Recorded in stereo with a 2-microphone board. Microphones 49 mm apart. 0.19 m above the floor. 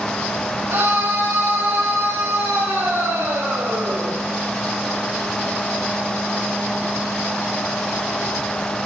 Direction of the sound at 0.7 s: 80° right.